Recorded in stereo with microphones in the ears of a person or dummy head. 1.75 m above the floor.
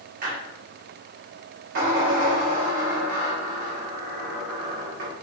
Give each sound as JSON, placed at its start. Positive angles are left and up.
{"t": 0.2, "sound": "a squeak", "side_deg": -50, "distance_m": 1.3}